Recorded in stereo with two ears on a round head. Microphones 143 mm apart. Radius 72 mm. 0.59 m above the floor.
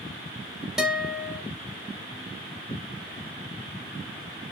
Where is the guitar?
5° right (ahead or behind), 0.6 m.